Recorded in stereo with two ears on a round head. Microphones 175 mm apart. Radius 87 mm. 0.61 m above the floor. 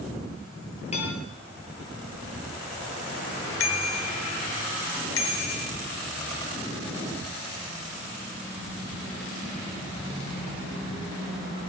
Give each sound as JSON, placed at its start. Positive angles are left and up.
{"t": 0.9, "sound": "dishes clattering", "side_deg": 35, "distance_m": 7.5}
{"t": 3.6, "sound": "a bicycle bell", "side_deg": 80, "distance_m": 2.5}